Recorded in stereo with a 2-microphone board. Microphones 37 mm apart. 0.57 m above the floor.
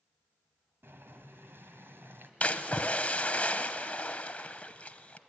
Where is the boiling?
90° right, 1.5 m.